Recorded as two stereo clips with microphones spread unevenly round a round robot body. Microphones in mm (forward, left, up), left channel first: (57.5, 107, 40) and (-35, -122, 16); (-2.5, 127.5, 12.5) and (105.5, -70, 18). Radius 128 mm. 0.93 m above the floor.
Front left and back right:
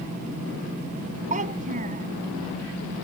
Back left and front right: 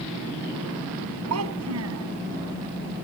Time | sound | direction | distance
1.3 | a child speaking | 50° right | ?